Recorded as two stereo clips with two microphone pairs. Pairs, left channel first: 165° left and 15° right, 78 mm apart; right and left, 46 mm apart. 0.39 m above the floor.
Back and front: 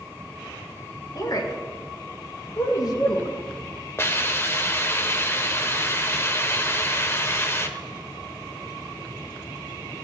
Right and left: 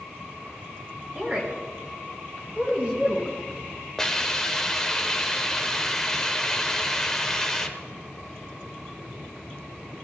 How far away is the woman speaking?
About 3.5 m.